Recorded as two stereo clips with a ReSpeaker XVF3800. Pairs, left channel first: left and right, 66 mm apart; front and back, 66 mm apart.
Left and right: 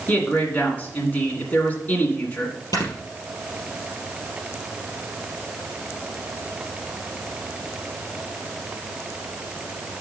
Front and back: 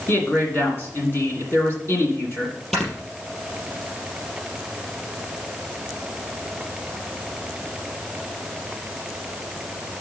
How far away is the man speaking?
About 1.9 m.